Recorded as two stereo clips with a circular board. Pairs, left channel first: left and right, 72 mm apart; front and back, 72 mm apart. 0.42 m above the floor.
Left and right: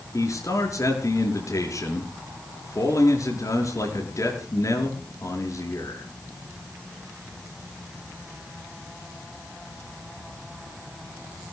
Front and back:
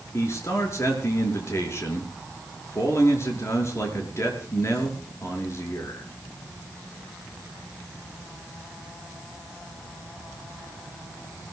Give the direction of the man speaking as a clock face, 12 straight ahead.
10 o'clock.